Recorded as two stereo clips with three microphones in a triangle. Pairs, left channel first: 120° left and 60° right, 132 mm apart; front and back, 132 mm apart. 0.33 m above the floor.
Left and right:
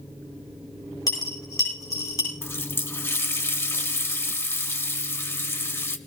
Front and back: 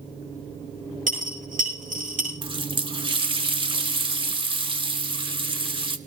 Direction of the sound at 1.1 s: 175° right.